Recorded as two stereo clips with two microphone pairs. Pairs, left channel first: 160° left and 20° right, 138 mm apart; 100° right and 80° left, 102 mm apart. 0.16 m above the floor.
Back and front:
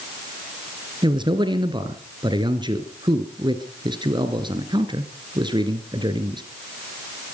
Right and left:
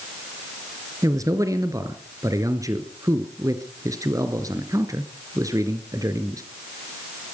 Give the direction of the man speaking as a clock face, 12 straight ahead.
11 o'clock.